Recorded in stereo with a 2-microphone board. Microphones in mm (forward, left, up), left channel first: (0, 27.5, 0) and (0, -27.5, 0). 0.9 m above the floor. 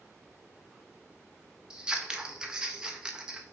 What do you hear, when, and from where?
1.7 s scissors: 15° right (ahead or behind), 0.5 m